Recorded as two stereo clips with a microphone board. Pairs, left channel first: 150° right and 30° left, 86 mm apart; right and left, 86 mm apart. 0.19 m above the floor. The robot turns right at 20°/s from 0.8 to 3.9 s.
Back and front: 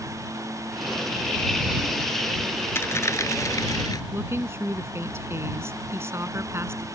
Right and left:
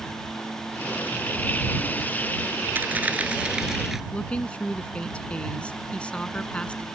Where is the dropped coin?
155° left; by 4.0 s 175° left.